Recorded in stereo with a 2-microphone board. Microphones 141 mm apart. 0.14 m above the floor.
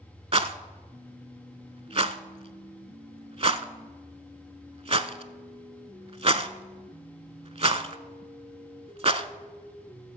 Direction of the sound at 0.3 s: 45° right (ahead or behind).